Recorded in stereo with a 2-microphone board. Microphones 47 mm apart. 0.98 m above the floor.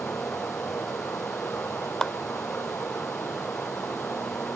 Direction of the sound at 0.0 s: 60° left (ahead or behind).